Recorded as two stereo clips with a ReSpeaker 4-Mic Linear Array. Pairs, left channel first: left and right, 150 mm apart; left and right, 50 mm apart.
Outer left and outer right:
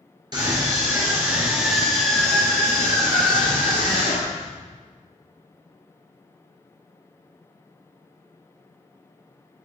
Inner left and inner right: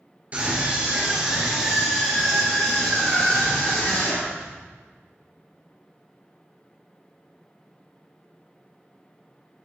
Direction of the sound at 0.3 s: 30° right (ahead or behind).